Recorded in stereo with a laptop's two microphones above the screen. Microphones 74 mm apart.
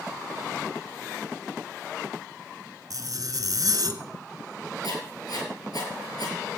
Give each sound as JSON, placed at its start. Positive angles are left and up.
{"t": 2.9, "sound": "a zipper", "side_deg": -50, "distance_m": 2.0}
{"t": 4.8, "sound": "writing", "side_deg": 60, "distance_m": 7.5}